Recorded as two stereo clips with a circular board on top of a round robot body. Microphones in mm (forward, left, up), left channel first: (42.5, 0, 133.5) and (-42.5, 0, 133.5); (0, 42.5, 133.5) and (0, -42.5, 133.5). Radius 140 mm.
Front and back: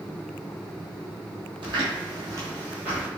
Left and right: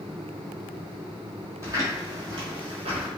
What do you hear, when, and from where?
1.6 s footsteps: 150° right, 1.0 m; by 3.1 s 95° right, 0.7 m